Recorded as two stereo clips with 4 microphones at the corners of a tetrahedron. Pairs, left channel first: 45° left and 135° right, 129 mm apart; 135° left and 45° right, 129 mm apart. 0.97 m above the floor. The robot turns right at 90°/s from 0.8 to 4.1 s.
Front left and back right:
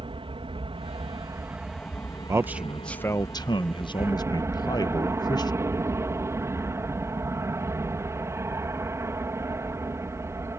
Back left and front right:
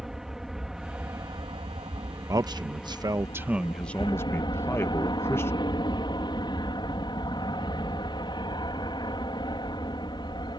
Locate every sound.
0.0 s an aircraft: 130° right; by 10.6 s 165° left
2.3 s a man speaking: 85° right; by 5.5 s 80° left